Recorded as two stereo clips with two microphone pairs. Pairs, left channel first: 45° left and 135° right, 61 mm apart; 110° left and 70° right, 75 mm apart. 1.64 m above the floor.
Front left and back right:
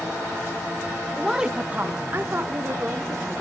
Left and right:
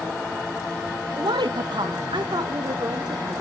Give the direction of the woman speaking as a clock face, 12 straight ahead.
1 o'clock.